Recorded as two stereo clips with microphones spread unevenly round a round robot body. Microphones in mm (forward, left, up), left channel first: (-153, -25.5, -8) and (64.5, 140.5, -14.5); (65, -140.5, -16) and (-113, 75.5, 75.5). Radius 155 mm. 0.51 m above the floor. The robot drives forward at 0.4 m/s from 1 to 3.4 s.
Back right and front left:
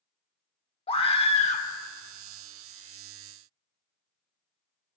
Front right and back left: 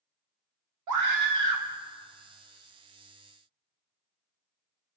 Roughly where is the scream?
Behind left.